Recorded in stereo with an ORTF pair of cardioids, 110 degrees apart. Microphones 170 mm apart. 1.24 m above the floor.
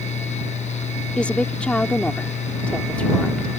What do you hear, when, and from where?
0.0 s a fan: 40° left
1.2 s a woman speaking: 5° left